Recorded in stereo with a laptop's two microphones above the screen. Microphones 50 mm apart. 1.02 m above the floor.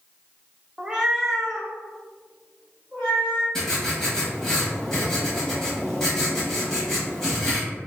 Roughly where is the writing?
Centre.